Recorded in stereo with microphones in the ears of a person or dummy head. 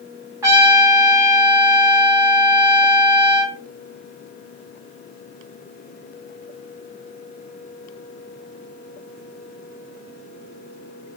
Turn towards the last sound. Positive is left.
turn(degrees=-20)  # may be behind; listen again after turning